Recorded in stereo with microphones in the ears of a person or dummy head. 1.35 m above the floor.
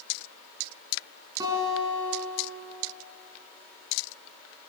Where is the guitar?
15° right (ahead or behind), 6.5 m.